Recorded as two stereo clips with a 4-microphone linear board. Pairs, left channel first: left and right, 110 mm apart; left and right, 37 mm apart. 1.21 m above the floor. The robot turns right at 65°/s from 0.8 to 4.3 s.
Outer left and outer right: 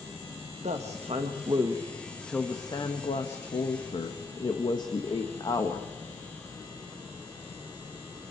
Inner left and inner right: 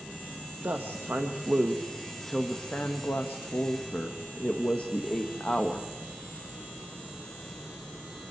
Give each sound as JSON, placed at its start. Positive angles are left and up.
{"t": 0.6, "sound": "a woman speaking", "azimuth_deg": -90, "distance_m": 1.4}